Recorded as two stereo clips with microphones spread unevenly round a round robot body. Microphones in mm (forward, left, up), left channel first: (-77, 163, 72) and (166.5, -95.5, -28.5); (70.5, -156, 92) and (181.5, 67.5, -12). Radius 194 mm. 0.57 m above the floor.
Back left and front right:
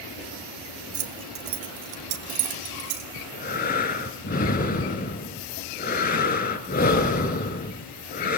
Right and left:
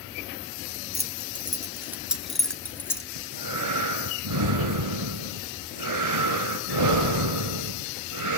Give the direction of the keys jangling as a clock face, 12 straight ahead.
12 o'clock.